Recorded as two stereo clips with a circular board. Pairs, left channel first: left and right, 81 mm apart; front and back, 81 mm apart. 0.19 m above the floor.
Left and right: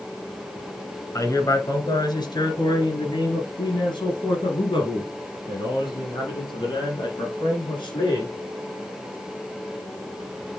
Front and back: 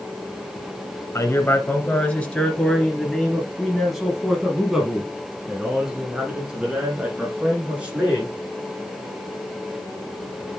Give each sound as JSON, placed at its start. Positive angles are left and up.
{"t": 1.1, "sound": "a man speaking", "azimuth_deg": 50, "distance_m": 1.8}